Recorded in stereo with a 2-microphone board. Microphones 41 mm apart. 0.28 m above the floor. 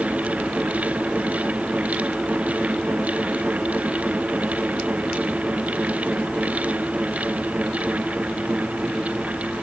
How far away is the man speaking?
No man speaking in this recording.